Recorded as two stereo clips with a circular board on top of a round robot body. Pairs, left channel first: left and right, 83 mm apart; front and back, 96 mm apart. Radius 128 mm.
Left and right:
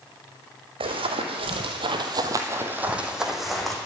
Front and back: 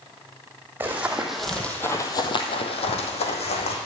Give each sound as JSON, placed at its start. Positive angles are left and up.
{"t": 0.8, "sound": "running footsteps", "azimuth_deg": -105, "distance_m": 2.0}